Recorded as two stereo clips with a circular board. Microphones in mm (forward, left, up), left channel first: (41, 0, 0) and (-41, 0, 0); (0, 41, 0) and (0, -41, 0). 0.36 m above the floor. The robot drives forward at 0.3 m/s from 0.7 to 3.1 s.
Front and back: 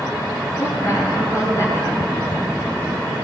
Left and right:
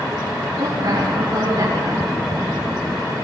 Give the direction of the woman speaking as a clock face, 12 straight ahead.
2 o'clock.